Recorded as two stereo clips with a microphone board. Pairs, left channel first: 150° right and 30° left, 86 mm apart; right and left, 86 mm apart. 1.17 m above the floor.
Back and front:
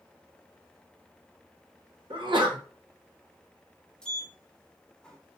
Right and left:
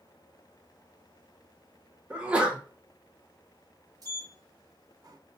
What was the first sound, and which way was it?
A sneeze, 15° left.